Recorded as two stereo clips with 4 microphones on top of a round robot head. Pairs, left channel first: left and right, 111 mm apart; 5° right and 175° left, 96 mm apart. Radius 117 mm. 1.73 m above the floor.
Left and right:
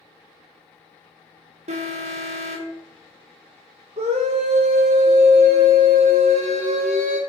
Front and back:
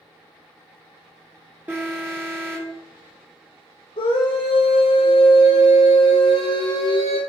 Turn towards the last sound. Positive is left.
turn(degrees=-50)